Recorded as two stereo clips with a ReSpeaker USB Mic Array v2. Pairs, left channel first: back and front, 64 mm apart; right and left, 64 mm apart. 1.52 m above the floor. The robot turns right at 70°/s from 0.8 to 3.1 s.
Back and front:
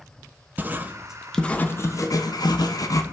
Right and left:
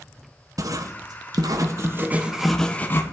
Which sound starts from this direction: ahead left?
Writing, at 0.6 s.